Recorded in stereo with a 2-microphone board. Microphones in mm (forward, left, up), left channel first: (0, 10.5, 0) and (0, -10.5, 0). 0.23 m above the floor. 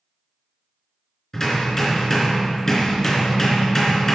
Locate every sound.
1.3 s hammering: 15° left (ahead or behind), 3.5 m